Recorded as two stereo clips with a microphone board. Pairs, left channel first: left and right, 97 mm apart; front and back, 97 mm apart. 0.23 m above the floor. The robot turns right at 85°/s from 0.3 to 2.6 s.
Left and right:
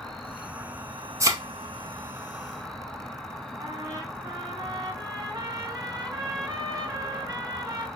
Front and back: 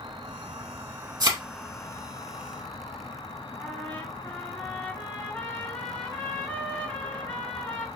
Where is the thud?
145° right, 0.7 m; by 1.4 s 125° right, 0.7 m.